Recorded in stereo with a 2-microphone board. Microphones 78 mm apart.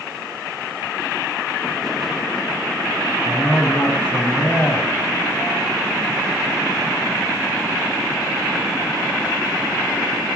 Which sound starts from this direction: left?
A man speaking, at 3.2 s.